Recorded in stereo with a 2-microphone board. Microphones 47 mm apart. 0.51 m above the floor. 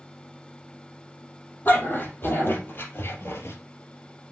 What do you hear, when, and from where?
1.6 s a dog barking: 40° left (ahead or behind), 4 m; by 3.6 s 65° left (ahead or behind), 2.5 m